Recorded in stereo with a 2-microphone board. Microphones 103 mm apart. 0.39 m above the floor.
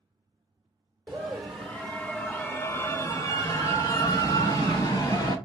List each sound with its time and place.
1.1 s a scream: 10° right (ahead or behind), 0.9 m; by 5.3 s 35° left (ahead or behind), 2 m